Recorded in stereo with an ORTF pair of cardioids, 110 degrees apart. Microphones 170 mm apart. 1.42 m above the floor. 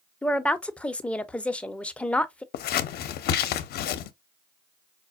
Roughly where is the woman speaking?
Ahead.